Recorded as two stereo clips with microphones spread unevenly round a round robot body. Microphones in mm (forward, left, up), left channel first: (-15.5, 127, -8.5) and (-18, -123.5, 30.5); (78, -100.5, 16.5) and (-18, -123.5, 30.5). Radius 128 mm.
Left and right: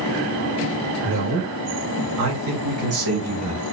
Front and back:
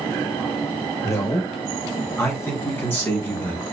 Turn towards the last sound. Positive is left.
turn(degrees=-55)